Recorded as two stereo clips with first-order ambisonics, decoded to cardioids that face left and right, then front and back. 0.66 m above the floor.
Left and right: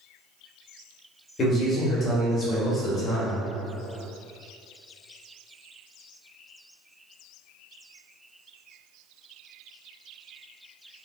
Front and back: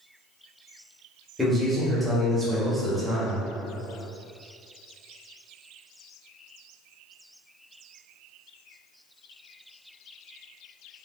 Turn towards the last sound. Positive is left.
turn(degrees=95)